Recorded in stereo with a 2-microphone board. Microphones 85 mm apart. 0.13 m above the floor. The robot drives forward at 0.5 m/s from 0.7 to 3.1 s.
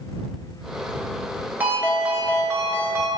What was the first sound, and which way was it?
A ringtone, 25° right (ahead or behind).